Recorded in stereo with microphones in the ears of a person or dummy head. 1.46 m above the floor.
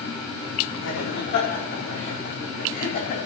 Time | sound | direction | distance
0.8 | laughter | 65° left (ahead or behind) | 4.5 m